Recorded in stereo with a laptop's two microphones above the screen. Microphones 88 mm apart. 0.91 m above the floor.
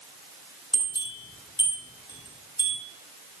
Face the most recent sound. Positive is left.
turn(degrees=60)  # may be behind; listen again after turning